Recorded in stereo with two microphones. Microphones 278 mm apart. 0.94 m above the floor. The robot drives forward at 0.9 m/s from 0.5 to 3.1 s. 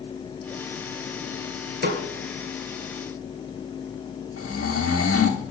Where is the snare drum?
40° right (ahead or behind), 1.5 m.